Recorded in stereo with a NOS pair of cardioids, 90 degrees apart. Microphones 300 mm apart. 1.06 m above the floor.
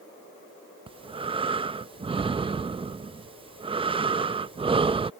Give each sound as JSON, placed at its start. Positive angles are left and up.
{"t": 0.9, "sound": "breathing", "azimuth_deg": -20}